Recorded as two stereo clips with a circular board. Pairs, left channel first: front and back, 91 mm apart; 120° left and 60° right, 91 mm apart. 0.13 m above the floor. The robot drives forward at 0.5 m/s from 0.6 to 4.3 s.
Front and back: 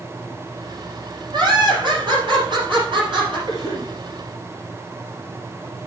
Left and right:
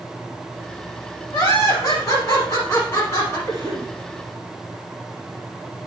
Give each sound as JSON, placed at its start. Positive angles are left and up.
{"t": 1.3, "sound": "laughter", "azimuth_deg": 175, "distance_m": 3.0}
{"t": 3.5, "sound": "a cough", "azimuth_deg": 165, "distance_m": 2.0}